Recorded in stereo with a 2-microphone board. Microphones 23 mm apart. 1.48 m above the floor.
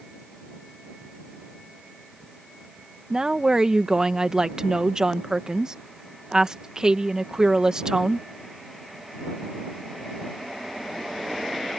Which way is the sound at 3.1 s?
25° right (ahead or behind).